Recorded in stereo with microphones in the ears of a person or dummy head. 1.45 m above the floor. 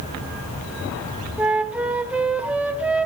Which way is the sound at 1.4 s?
5° right (ahead or behind).